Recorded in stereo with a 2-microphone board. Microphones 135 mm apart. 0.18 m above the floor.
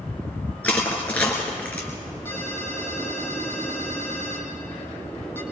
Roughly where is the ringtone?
Centre.